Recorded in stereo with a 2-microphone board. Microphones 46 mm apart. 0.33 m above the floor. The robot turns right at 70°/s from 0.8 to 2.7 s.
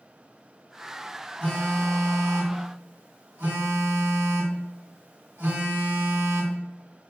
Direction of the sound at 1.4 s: 165° left.